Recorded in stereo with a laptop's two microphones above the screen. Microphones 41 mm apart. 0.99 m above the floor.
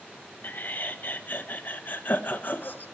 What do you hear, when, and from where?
0.4 s laughter: 45° left (ahead or behind), 0.9 m